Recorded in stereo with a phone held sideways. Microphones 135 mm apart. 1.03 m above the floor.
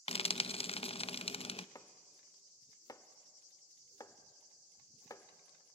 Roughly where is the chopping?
Left.